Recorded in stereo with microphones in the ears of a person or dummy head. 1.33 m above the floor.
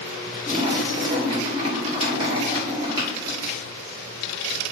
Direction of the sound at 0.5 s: 25° right (ahead or behind).